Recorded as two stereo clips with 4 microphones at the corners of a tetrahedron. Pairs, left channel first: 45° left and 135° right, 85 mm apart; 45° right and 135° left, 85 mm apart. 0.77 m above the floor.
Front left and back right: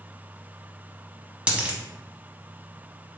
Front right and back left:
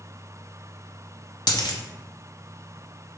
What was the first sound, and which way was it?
A dropped coin, 60° right.